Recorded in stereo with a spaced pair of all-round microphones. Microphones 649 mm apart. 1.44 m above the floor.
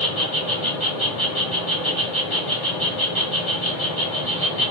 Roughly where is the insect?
Left.